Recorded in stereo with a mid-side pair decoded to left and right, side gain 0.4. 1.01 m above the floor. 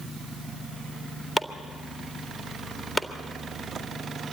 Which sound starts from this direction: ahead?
Chopping, at 1.4 s.